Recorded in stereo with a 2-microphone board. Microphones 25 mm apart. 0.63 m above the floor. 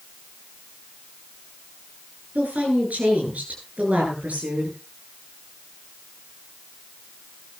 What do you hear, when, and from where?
2.4 s a woman speaking: 80° right, 9.5 m